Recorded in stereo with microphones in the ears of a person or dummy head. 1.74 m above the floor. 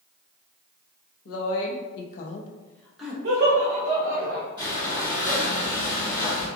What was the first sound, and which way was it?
A woman speaking, 80° left.